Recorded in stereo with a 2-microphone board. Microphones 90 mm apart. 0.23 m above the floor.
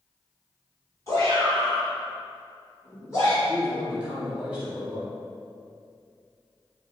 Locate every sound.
1.1 s a shout: 35° left (ahead or behind), 1.5 m
3.5 s a man speaking: 10° right (ahead or behind), 0.9 m